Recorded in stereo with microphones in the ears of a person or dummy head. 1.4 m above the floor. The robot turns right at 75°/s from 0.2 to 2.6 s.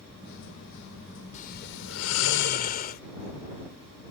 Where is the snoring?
40° left; by 3.0 s 135° left.